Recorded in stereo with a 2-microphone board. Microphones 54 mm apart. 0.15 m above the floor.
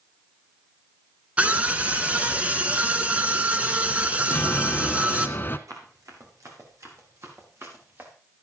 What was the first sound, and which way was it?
A scream, 25° right (ahead or behind).